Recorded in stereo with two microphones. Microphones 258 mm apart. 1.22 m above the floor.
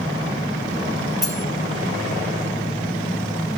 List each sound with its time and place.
1.2 s cutlery clinking: 40° left (ahead or behind), 2.5 m